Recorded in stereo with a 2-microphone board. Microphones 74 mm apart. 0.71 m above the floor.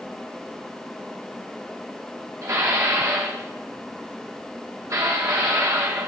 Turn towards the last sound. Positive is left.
turn(degrees=-45)  # may be behind; listen again after turning